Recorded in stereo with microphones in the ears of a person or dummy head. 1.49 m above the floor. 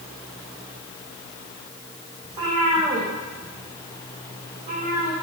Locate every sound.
2.2 s a cat meowing: 20° right (ahead or behind), 7.5 m; by 5.1 s 35° right (ahead or behind), 7.5 m